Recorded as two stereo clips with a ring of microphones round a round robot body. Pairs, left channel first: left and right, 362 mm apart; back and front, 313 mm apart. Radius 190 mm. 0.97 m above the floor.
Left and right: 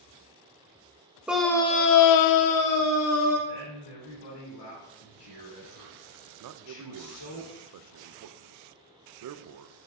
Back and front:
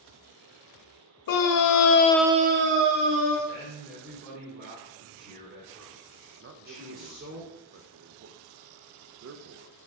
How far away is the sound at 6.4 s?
About 0.5 m.